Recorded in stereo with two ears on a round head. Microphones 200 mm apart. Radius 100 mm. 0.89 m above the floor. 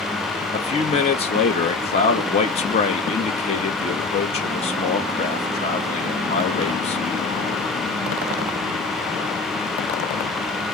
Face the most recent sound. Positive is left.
turn(degrees=30)  # may be behind; listen again after turning